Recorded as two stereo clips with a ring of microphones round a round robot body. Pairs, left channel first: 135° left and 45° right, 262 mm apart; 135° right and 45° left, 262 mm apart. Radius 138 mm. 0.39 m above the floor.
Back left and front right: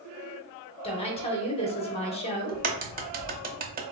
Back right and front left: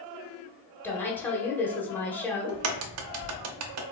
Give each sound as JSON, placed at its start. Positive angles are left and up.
{"t": 0.8, "sound": "a woman speaking", "azimuth_deg": 155, "distance_m": 0.9}
{"t": 2.5, "sound": "a crack", "azimuth_deg": 15, "distance_m": 0.5}